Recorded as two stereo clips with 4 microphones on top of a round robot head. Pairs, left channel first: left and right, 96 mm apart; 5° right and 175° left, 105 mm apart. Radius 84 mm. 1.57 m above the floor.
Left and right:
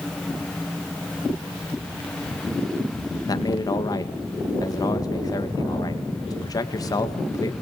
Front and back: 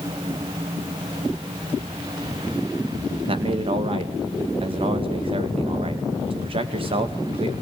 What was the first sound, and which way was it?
A man speaking, 140° left.